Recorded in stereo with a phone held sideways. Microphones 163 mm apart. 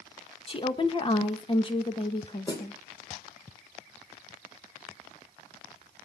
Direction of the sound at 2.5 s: 25° left (ahead or behind).